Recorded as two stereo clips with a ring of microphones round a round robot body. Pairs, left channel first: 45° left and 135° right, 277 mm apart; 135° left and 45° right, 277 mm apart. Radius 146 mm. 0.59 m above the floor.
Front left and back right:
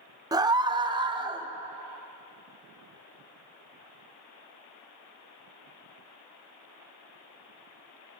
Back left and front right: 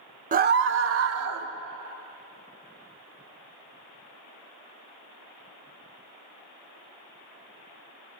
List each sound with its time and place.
0.3 s a scream: 70° right, 0.6 m; by 1.5 s 65° right, 1.1 m